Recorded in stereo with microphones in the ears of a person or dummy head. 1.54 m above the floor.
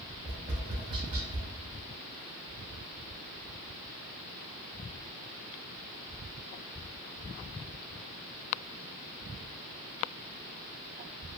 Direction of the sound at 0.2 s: 30° right (ahead or behind).